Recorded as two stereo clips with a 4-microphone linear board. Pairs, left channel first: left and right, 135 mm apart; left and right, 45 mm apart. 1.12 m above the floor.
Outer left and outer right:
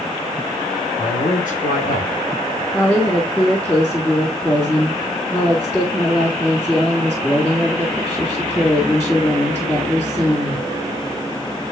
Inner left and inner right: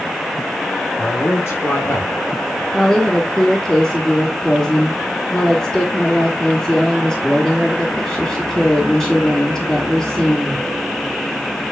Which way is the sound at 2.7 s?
20° left (ahead or behind).